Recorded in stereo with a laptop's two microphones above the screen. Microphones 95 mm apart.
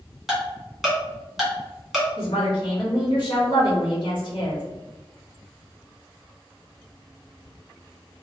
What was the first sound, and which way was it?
Ticking, centre (ahead or behind).